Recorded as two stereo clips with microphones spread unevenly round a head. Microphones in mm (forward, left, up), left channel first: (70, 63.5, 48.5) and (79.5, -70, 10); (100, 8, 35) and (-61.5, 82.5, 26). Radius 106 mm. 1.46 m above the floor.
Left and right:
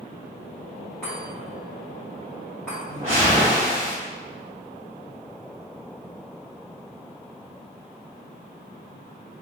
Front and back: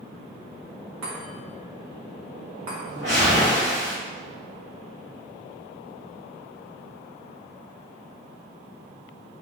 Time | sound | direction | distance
1.0 | a chime | 175° left | 1.4 m
2.9 | a whoosh | 170° right | 1.9 m